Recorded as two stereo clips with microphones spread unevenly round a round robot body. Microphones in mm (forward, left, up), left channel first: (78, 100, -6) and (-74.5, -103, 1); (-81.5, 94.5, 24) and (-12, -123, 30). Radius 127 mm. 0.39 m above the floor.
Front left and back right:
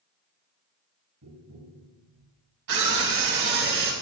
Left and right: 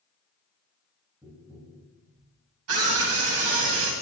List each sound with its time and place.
1.2 s tapping: 150° right, 6.5 m
2.7 s a scream: 85° right, 2.5 m